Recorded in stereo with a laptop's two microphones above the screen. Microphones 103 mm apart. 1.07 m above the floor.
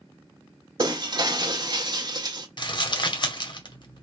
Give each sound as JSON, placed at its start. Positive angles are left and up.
{"t": 0.8, "sound": "breaking glass", "side_deg": -45, "distance_m": 0.8}
{"t": 2.6, "sound": "crumpling", "side_deg": 50, "distance_m": 0.9}